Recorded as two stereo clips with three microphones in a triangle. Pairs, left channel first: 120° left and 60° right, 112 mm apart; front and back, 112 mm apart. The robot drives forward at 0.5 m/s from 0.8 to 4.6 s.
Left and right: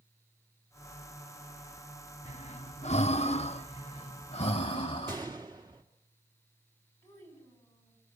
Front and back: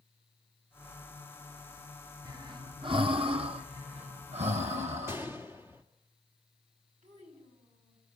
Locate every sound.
2.2 s breathing: 125° left, 0.9 m; by 5.2 s 155° left, 1.9 m
5.1 s a gunshot: 110° right, 2.5 m
7.0 s a child speaking: 175° right, 9.5 m